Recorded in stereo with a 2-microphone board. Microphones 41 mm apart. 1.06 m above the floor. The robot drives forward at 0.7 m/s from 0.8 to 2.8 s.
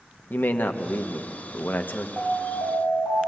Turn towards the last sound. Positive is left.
turn(degrees=-45)  # may be behind; listen again after turning